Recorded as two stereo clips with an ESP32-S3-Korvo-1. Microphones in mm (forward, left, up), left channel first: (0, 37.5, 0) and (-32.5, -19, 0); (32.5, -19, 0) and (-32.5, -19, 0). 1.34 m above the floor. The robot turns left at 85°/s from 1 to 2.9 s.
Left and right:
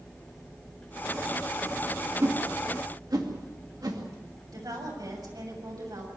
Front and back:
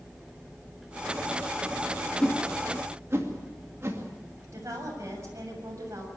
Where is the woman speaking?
140° right, 7 m.